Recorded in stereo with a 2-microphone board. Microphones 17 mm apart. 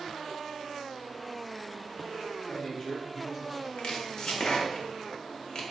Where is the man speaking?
30° left (ahead or behind), 0.9 m; by 3.7 s 25° right (ahead or behind), 1.3 m.